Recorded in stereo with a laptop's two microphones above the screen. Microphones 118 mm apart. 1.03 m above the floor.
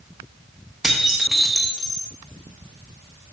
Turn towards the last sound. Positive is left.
turn(degrees=0)  # may be behind; listen again after turning